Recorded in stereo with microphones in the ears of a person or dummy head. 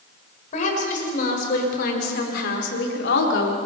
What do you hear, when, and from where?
0.5 s a woman speaking: 50° left (ahead or behind), 5.5 m; by 3.6 s 80° left, 3 m